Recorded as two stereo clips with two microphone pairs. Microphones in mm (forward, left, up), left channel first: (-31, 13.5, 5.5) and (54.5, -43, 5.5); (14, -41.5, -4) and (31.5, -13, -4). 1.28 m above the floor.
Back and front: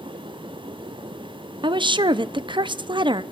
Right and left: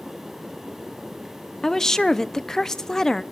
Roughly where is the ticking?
I don't hear ticking.